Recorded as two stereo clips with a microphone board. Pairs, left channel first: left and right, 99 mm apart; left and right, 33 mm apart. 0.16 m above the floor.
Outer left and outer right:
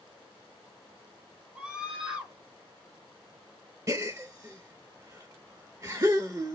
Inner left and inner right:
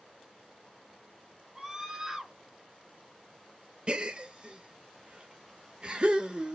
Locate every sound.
1.6 s a scream: 15° right (ahead or behind), 1.2 m
3.9 s a gasp: 35° right (ahead or behind), 0.6 m